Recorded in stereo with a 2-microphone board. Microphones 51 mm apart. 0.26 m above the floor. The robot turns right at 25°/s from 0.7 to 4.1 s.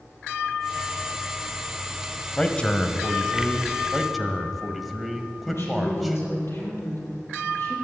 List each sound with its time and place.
2.4 s a man speaking: 35° left, 1.1 m; by 3.8 s 75° left, 1.1 m
3.9 s a man speaking: centre (ahead or behind), 1.5 m
5.5 s a woman speaking: 60° left (ahead or behind), 6.5 m